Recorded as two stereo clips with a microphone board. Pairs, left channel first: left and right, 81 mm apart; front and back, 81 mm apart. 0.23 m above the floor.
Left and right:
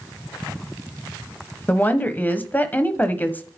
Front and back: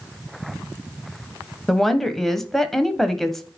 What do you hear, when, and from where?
1.7 s a woman speaking: 80° left, 1.1 m